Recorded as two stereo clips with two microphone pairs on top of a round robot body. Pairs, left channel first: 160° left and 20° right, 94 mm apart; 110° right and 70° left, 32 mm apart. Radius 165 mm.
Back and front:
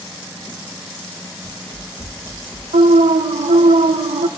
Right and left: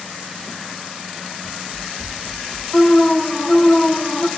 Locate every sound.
1.4 s running footsteps: 105° left, 1.8 m; by 2.6 s 135° left, 1.5 m
2.7 s an alarm: 40° right, 0.5 m